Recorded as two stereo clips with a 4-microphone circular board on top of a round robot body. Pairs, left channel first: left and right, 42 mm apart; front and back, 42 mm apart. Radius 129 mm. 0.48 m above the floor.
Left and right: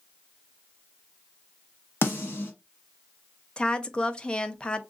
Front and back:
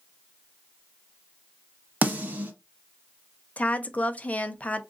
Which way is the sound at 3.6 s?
35° left.